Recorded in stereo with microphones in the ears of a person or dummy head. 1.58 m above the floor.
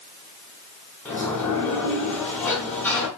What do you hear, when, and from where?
1.1 s a sliding door: 10° left (ahead or behind), 0.9 m